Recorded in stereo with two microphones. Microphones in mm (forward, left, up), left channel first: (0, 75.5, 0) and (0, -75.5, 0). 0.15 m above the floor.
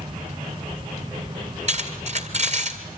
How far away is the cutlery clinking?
About 2 m.